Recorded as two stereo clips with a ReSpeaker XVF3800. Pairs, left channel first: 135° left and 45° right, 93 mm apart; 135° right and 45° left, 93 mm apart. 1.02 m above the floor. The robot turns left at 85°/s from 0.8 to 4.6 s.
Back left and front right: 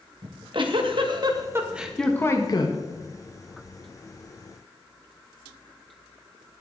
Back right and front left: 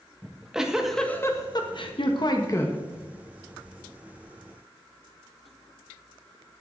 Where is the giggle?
40° right, 1.4 m; by 2.8 s 155° left, 1.4 m.